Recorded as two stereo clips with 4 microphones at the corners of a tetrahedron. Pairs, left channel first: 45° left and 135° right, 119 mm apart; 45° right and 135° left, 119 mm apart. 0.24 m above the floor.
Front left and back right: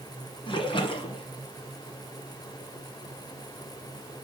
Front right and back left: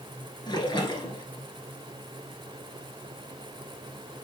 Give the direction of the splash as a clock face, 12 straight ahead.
12 o'clock.